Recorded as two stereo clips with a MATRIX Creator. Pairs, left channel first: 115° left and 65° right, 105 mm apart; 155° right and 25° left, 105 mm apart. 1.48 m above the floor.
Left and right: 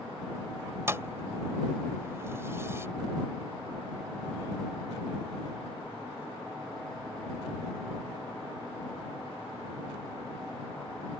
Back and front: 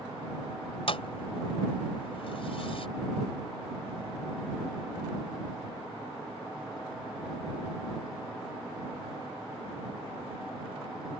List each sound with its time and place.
0.9 s a thud: 130° right